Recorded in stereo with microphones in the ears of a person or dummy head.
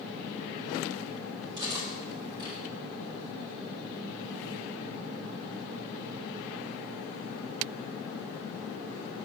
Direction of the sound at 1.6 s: 25° right (ahead or behind).